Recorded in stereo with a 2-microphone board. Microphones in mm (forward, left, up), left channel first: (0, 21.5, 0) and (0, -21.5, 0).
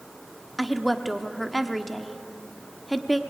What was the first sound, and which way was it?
A woman speaking, centre (ahead or behind).